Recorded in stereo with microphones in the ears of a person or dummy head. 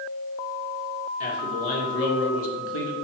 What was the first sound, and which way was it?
A man speaking, 40° left (ahead or behind).